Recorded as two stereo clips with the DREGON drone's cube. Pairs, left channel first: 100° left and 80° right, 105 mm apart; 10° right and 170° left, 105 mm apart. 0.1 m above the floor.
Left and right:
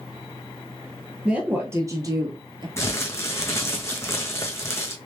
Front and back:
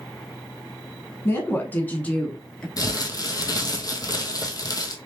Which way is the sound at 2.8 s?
40° left.